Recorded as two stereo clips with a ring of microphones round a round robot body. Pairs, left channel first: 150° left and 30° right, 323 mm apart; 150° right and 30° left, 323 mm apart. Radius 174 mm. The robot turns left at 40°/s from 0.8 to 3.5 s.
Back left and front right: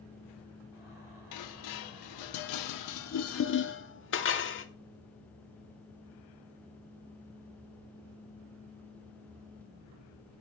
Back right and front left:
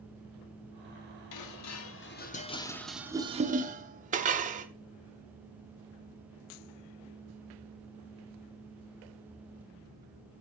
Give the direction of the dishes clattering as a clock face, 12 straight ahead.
6 o'clock.